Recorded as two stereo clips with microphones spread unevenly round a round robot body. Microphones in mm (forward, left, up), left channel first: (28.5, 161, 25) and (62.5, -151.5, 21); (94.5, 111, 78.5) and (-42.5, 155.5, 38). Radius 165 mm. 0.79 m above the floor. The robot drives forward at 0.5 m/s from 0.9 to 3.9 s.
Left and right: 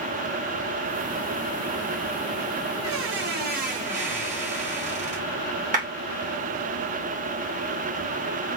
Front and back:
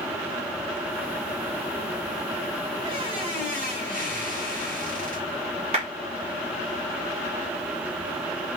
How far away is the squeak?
About 0.6 m.